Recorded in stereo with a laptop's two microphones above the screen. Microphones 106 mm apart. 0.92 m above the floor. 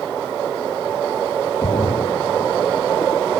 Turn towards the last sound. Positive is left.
turn(degrees=55)  # may be behind; listen again after turning